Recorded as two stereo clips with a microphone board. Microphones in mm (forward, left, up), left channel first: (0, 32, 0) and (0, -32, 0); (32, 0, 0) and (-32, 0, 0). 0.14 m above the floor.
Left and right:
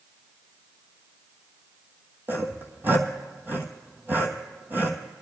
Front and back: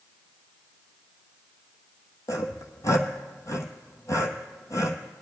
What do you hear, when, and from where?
2.3 s sawing: 35° right, 1.2 m